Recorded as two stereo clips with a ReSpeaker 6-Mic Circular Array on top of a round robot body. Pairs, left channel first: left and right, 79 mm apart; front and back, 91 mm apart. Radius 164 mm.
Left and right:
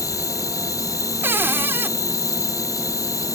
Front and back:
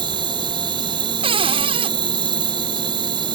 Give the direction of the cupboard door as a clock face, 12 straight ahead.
5 o'clock.